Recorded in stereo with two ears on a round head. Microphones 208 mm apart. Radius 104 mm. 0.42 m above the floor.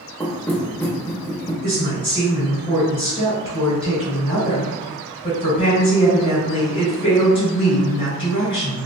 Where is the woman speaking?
25° left (ahead or behind), 1.6 m.